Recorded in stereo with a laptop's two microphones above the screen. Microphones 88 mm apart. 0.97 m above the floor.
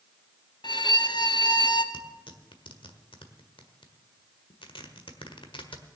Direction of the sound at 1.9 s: 70° left (ahead or behind).